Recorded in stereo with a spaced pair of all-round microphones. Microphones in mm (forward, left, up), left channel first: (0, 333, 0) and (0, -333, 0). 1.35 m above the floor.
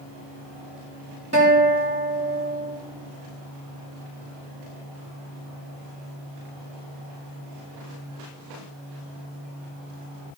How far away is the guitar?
About 3.5 m.